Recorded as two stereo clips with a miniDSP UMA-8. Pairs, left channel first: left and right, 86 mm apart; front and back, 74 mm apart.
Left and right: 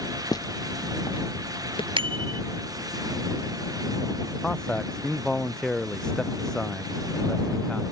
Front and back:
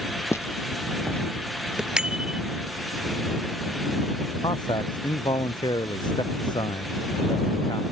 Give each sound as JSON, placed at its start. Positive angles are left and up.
{"t": 0.3, "sound": "footsteps", "azimuth_deg": 50}
{"t": 2.0, "sound": "a bicycle bell", "azimuth_deg": -100}
{"t": 4.4, "sound": "a man speaking", "azimuth_deg": 10}